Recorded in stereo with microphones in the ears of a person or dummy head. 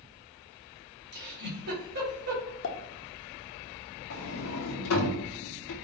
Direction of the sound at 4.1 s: 85° left.